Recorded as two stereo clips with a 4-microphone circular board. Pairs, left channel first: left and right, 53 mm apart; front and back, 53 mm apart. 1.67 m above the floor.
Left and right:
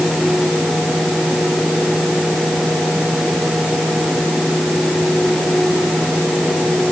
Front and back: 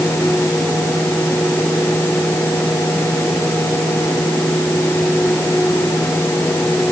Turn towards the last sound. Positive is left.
No sound to turn to.